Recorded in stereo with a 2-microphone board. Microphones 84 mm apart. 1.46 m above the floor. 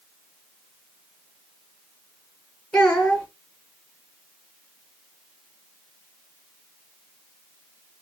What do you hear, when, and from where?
2.7 s a child speaking: 10° left (ahead or behind), 0.9 m